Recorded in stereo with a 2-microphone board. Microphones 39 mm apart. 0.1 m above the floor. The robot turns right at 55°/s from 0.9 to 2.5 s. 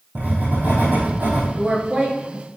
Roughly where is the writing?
Behind right.